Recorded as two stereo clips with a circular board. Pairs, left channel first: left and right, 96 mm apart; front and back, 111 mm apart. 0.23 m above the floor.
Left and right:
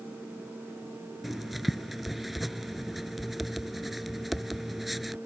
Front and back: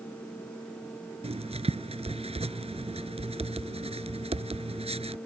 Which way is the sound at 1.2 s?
Straight behind.